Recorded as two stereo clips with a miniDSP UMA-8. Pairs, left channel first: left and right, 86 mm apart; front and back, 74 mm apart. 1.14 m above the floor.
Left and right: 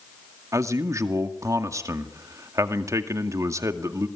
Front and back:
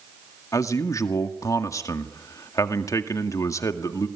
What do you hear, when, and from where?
0.5 s a man speaking: 40° right, 2 m